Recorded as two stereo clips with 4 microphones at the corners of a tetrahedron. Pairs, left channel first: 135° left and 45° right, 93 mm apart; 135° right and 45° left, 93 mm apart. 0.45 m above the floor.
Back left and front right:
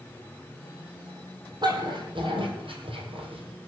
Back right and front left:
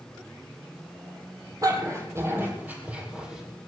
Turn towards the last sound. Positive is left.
turn(degrees=-40)